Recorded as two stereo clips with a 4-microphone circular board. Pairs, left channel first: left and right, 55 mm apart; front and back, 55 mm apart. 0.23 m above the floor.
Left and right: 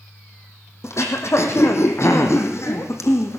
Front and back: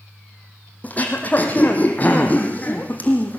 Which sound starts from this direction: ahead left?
Throat clearing, at 0.8 s.